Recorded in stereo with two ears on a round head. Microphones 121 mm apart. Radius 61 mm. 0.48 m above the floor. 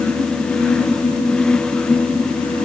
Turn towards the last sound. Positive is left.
No sound to turn to.